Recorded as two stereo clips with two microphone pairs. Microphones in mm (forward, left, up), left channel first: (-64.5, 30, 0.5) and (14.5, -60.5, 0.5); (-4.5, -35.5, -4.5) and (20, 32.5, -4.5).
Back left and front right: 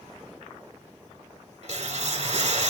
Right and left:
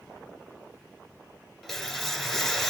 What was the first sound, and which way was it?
A whoosh, 25° right.